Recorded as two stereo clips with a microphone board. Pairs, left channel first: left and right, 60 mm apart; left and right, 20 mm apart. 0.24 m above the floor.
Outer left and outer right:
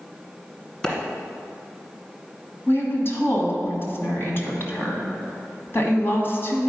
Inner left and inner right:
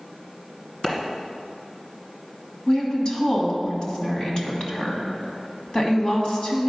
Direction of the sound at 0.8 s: 15° left (ahead or behind).